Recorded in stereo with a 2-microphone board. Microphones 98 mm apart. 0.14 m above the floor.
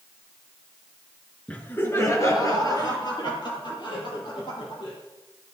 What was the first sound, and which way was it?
Laughter, 15° left (ahead or behind).